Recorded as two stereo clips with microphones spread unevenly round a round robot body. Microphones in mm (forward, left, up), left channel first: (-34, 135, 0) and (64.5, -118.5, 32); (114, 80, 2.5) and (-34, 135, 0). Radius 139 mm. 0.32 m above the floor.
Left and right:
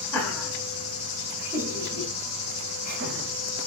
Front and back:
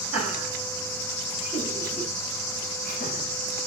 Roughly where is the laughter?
Ahead left.